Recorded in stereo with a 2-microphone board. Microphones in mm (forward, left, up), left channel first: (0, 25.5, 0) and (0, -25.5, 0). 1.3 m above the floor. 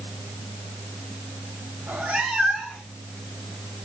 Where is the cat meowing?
50° right (ahead or behind), 1.2 m; by 3.0 s 10° left (ahead or behind), 1.9 m.